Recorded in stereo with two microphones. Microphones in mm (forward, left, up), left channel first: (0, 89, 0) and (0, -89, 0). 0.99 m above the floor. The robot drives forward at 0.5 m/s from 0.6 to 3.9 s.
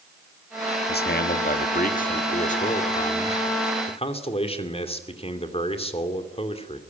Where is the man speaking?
65° left (ahead or behind), 1.5 m; by 6.8 s 35° left (ahead or behind), 2.5 m.